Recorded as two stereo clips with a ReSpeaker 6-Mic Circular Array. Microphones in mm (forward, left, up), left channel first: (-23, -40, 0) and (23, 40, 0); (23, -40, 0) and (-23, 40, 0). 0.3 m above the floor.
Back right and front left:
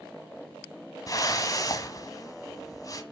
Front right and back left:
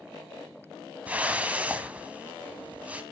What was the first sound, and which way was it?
A whoosh, 165° right.